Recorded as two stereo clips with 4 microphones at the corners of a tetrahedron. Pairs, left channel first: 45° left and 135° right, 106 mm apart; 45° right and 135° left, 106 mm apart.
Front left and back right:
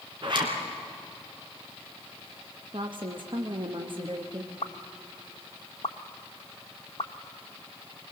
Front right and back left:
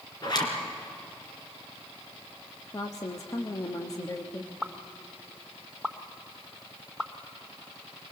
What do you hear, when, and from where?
0.2 s a zipper: 95° right, 3 m
2.7 s a woman speaking: 100° right, 1.1 m
4.6 s a pop: 45° left, 0.9 m